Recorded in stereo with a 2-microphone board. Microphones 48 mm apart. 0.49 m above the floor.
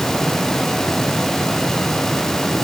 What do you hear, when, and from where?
Only background noise.